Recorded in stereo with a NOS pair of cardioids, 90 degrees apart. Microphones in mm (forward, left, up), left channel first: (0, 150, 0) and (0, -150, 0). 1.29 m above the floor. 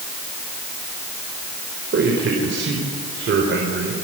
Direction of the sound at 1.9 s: 40° right.